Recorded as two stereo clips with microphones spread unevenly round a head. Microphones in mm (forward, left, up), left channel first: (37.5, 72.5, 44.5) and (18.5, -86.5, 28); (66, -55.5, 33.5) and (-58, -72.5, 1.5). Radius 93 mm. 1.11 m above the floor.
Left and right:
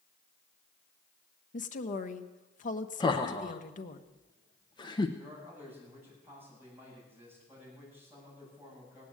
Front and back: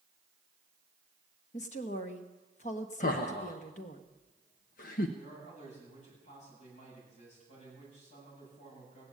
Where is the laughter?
20° left, 0.9 m.